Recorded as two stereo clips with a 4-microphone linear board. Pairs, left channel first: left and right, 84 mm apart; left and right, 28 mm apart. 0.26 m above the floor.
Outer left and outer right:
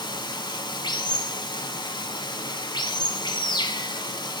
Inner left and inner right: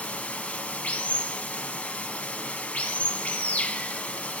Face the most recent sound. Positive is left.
turn(degrees=65)  # may be behind; listen again after turning